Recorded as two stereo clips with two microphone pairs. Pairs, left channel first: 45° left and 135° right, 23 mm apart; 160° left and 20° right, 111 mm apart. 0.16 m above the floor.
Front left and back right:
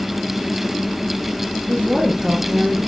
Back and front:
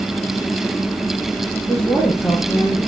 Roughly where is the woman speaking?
Behind right.